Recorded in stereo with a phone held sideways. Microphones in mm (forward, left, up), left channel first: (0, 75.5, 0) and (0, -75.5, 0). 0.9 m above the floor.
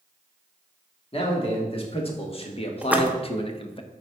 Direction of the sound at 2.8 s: 10° right (ahead or behind).